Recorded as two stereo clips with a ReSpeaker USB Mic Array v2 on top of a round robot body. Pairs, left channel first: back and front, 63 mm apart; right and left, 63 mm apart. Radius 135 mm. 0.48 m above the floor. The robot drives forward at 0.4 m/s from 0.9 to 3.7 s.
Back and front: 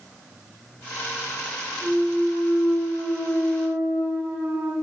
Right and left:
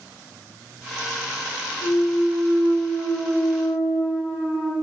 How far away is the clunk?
About 1.9 m.